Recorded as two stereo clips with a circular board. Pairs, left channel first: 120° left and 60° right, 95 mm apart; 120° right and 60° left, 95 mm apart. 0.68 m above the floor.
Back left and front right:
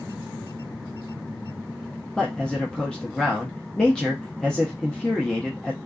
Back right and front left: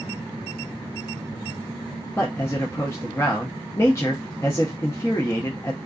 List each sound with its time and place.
2.2 s a man speaking: 165° right, 0.6 m